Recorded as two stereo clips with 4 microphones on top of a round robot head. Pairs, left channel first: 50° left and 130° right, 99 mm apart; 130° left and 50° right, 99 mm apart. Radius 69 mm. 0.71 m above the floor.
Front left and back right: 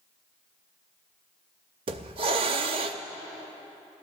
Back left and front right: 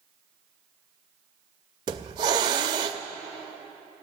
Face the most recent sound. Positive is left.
turn(degrees=-95)